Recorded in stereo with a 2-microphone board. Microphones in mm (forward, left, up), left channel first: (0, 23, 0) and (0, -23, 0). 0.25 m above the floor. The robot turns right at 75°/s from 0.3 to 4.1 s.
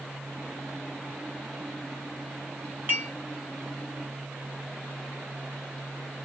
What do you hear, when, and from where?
2.9 s dishes clattering: 45° right (ahead or behind), 1.8 m; by 3.1 s 30° right (ahead or behind), 1.8 m